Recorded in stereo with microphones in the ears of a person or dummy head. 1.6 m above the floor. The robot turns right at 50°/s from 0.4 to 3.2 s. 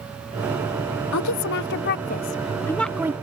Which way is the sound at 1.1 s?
90° left.